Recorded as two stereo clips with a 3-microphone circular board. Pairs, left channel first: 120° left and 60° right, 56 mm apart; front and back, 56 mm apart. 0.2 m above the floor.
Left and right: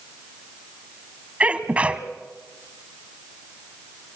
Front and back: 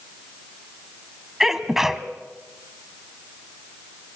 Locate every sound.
1.4 s a sneeze: 105° right, 1.3 m